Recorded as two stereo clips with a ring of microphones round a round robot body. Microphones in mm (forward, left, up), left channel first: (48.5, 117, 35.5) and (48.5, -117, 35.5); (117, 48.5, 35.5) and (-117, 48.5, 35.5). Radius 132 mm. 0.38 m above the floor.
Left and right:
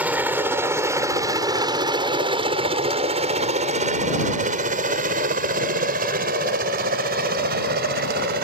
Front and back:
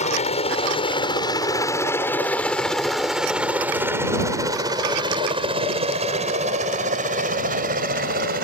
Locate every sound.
0.0 s a helicopter: 15° right; by 8.4 s 135° right